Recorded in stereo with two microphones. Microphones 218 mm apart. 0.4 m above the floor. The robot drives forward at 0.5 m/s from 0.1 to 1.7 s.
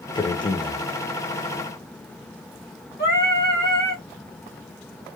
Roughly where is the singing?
Left.